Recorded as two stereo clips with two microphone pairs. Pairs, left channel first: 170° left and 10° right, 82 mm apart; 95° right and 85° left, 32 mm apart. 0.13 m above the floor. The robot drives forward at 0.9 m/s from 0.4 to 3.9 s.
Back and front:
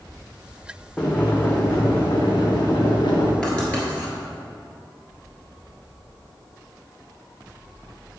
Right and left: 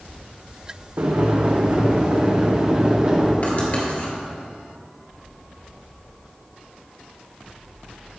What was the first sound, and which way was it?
Boiling, 90° left.